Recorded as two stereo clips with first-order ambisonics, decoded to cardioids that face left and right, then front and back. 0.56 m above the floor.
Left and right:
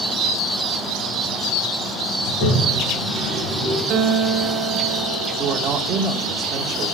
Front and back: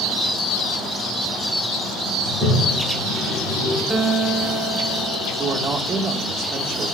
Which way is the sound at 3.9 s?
110° right.